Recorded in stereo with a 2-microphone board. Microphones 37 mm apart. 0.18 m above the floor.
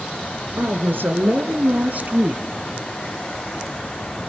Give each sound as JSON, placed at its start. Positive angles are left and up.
{"t": 0.6, "sound": "a woman speaking", "side_deg": -65, "distance_m": 3.0}